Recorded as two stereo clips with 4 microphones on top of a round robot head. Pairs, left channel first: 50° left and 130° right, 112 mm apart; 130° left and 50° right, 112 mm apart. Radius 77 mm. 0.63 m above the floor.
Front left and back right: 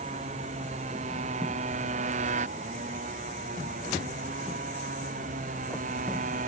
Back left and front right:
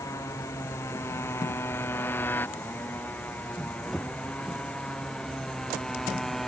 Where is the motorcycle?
160° right; by 6.5 s 140° right.